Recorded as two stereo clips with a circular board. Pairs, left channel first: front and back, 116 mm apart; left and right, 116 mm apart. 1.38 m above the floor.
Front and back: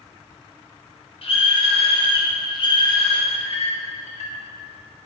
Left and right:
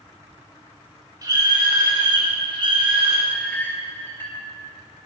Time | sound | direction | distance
1.2 | a scream | 35° right | 4 m
3.3 | a clink | 15° left | 2.5 m